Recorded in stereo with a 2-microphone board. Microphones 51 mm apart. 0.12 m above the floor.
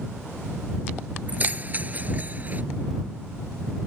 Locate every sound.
1.3 s keys jangling: 35° right (ahead or behind)